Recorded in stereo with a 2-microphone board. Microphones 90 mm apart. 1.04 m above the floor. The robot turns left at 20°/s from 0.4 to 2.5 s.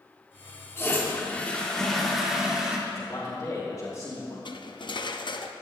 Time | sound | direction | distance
0.8 | a toilet flushing | 30° left | 1.7 m
2.9 | a man speaking | 35° left (ahead or behind) | 3 m
4.5 | cutlery clinking | 55° left (ahead or behind) | 0.6 m